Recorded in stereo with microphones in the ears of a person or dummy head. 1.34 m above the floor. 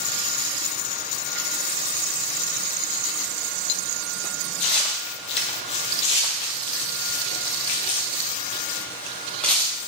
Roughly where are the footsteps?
Left.